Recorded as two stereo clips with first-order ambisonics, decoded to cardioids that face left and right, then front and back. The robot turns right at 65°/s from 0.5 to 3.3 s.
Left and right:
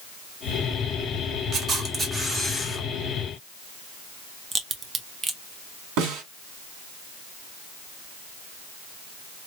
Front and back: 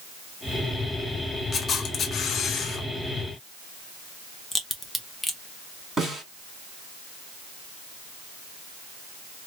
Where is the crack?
70° right, 0.6 m.